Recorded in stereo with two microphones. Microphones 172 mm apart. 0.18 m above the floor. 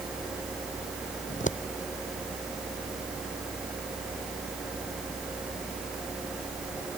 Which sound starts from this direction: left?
Scissors, at 1.3 s.